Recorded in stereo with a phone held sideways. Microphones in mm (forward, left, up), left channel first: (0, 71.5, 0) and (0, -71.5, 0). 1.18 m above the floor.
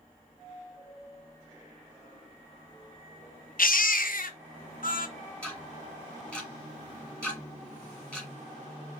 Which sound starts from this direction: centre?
Ticking, at 5.4 s.